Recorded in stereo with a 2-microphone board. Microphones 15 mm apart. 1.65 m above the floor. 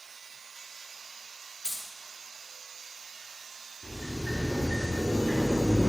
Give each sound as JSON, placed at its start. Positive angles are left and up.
{"t": 1.6, "sound": "keys jangling", "side_deg": -60, "distance_m": 1.1}
{"t": 3.8, "sound": "a sliding door", "side_deg": -30, "distance_m": 1.7}